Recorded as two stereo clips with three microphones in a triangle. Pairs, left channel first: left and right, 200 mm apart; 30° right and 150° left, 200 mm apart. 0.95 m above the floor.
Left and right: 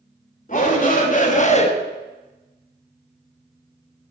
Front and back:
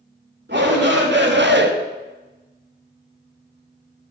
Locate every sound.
0.5 s a shout: 135° left, 2.5 m; by 1.7 s 140° left, 0.7 m